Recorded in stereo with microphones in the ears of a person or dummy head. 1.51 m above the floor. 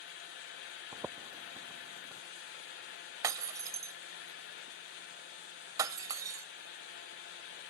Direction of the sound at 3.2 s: 15° right (ahead or behind).